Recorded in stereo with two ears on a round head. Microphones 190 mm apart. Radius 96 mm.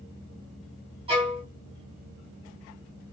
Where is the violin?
25° right (ahead or behind), 1.6 m.